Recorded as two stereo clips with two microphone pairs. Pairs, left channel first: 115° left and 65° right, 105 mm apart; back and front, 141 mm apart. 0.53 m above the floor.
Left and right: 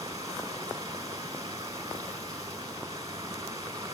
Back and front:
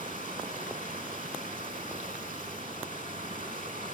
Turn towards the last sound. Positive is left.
turn(degrees=-10)